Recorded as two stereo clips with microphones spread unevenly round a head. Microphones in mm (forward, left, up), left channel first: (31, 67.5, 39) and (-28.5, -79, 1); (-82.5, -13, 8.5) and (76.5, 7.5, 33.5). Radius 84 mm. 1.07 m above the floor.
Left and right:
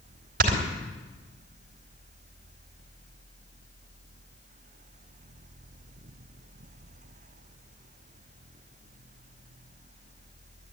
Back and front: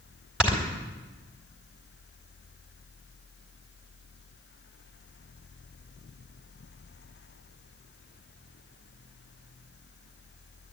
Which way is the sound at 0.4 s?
80° right.